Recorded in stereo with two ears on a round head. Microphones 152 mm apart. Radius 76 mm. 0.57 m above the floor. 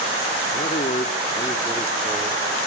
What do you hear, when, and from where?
0.5 s a man speaking: 45° left (ahead or behind), 1.1 m; by 2.6 s 5° right (ahead or behind), 1.5 m